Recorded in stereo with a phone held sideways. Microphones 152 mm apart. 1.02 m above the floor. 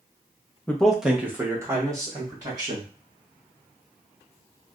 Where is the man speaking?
10° left (ahead or behind), 0.6 m; by 2.9 s 25° right (ahead or behind), 2 m.